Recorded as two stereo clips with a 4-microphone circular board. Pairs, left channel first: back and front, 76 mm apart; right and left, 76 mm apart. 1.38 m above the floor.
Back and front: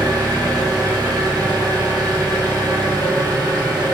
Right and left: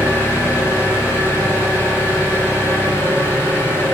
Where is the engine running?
30° right, 1.1 m.